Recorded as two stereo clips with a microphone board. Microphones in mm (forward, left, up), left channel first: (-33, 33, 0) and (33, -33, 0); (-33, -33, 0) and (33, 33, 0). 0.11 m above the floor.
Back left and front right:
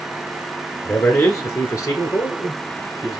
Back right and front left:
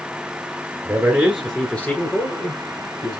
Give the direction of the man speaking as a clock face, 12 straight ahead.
9 o'clock.